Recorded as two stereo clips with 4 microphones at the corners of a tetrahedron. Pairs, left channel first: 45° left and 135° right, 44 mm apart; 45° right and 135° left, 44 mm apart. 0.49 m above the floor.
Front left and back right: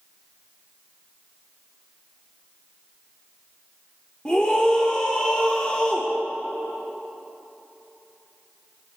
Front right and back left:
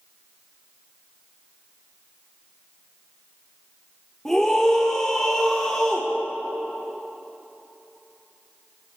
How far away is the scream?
About 1.2 m.